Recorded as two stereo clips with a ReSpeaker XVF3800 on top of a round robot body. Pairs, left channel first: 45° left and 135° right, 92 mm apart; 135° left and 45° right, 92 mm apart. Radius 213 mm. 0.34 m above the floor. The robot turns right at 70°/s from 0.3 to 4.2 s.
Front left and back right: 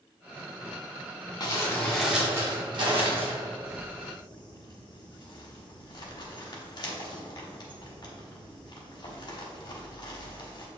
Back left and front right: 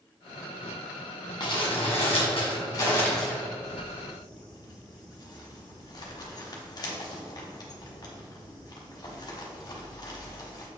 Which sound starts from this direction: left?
Crumpling, at 1.4 s.